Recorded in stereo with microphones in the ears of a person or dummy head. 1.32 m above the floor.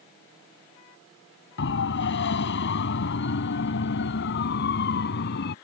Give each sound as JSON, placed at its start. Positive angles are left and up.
{"t": 1.6, "sound": "a siren", "side_deg": 65}